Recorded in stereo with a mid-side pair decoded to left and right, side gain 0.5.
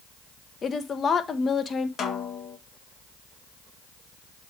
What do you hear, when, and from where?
0.6 s a woman speaking: 40° left, 1.5 m
2.0 s a snare drum: 50° left, 1.5 m